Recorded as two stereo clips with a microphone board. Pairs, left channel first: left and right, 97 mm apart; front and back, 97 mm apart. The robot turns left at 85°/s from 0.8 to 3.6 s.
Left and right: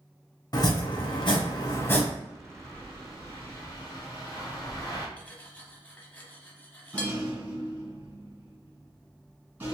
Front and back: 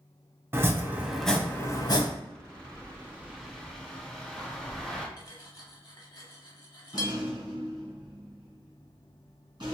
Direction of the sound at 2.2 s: 155° right.